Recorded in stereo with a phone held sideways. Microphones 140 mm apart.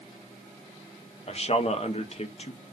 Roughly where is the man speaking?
Left.